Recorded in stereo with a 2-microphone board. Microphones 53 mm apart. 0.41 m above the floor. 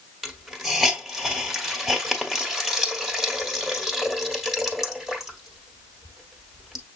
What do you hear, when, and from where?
0.2 s a hiss: 5° right (ahead or behind), 1.4 m